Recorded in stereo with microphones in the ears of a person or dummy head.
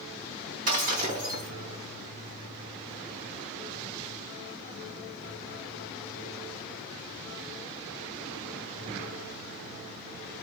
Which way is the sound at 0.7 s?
40° right (ahead or behind).